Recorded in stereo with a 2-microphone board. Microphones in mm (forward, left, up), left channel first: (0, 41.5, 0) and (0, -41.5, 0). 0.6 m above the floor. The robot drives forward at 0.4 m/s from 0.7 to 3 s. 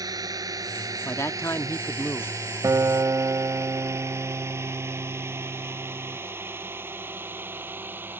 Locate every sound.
0.0 s a drone: 50° right (ahead or behind); by 8.2 s 25° right (ahead or behind)
1.1 s a man speaking: 35° left (ahead or behind); by 2.4 s 30° left (ahead or behind)
2.6 s a guitar: 45° right (ahead or behind); by 6.2 s 40° right (ahead or behind)